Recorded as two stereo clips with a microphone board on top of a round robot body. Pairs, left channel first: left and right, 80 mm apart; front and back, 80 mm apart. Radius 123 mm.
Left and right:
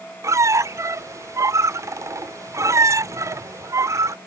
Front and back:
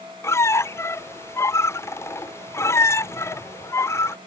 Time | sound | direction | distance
0.2 | a squeak | 50° right | ?